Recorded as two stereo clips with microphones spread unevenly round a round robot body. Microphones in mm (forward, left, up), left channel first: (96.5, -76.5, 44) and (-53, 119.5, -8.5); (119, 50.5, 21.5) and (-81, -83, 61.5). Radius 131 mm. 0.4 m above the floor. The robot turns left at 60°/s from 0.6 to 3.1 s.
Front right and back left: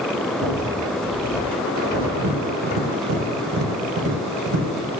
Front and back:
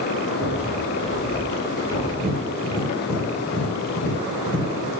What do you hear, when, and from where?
0.4 s a rattle: 150° left, 2.5 m; by 2.1 s 60° left, 2.5 m
2.2 s tapping: 155° left, 3 m; by 4.7 s 100° left, 3 m